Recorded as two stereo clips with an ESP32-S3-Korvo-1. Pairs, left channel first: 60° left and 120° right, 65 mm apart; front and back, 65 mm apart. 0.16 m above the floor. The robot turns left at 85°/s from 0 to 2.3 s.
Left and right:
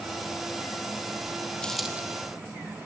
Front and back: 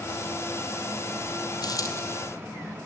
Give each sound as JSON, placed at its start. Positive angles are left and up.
{"t": 1.6, "sound": "a dropped coin", "azimuth_deg": -15, "distance_m": 2.5}